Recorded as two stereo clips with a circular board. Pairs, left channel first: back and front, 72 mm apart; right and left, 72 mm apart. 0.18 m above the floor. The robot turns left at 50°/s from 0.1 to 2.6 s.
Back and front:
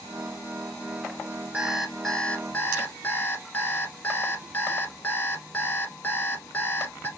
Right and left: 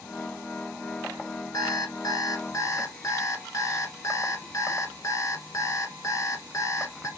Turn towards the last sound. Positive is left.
turn(degrees=-120)